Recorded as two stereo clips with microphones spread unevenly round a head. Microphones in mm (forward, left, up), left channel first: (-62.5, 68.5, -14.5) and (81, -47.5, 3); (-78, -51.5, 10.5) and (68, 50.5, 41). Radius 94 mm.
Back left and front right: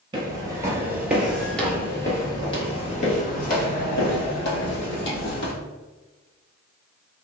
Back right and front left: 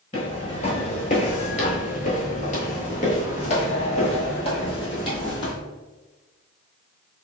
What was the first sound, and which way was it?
Footsteps, 85° right.